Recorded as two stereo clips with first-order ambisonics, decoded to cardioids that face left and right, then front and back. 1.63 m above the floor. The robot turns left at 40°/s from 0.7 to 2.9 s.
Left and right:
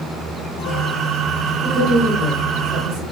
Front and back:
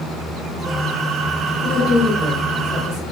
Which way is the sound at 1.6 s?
45° right.